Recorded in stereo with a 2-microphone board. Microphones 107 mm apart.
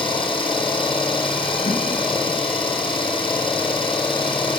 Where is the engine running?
50° left (ahead or behind), 3.5 m.